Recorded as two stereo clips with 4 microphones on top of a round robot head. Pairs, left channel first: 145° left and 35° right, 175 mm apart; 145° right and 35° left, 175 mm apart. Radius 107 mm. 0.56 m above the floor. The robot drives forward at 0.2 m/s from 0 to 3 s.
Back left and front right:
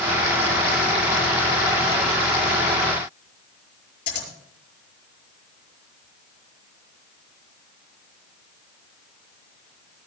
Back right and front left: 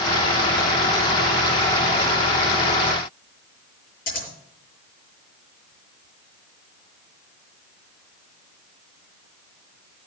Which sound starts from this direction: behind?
Scissors, at 4.1 s.